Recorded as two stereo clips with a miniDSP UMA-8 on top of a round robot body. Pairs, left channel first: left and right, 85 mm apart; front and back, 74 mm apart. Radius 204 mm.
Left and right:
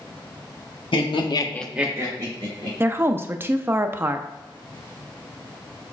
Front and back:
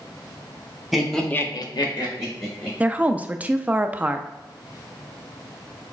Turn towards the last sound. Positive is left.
turn(degrees=-125)